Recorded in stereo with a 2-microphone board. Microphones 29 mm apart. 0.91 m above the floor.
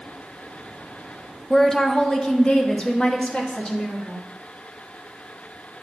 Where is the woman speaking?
10° left (ahead or behind), 0.5 m; by 4.2 s 35° left (ahead or behind), 1.9 m.